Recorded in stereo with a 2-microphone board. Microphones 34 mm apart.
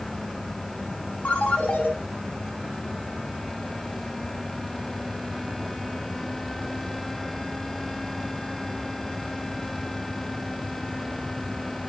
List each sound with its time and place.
1.2 s a ringtone: 40° left (ahead or behind), 4.5 m